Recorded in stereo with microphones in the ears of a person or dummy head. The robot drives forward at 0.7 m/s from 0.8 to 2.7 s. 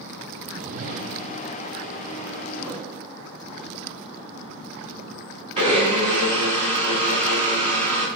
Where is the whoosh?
45° right (ahead or behind), 0.7 m; by 1.4 s 80° right, 0.5 m.